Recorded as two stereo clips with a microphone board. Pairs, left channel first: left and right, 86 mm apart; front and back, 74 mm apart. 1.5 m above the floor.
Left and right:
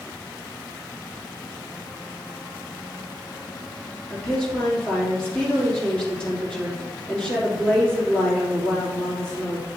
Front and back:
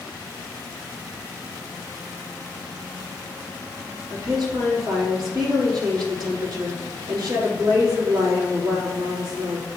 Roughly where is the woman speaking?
Behind.